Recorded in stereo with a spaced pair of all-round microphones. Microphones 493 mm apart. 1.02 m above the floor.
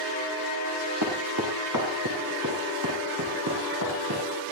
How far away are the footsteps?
About 6 m.